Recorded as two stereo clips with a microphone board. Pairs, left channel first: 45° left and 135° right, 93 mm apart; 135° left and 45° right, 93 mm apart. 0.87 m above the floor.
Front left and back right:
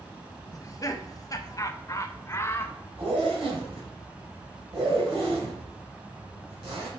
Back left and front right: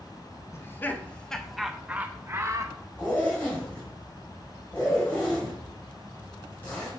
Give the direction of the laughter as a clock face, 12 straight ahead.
9 o'clock.